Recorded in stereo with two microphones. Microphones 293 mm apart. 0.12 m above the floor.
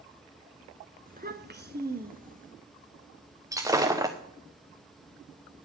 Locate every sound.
1.1 s a child speaking: 30° right (ahead or behind), 1.0 m; by 2.5 s 25° right (ahead or behind), 1.5 m
3.5 s breaking glass: 10° right (ahead or behind), 1.5 m